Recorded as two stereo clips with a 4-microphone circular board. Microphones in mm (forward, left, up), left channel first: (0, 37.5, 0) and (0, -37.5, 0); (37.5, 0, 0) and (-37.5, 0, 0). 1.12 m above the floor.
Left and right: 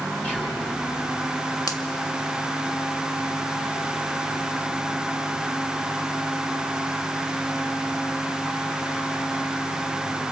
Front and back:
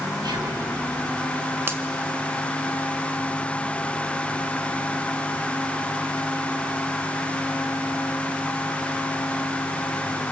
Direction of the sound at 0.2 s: 165° left.